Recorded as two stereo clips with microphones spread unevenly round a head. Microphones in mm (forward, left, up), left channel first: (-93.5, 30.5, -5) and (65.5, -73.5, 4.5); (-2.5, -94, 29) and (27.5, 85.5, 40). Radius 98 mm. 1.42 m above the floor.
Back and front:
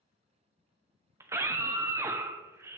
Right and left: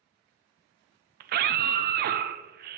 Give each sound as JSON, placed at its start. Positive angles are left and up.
{"t": 1.2, "sound": "a scream", "azimuth_deg": 45, "distance_m": 0.6}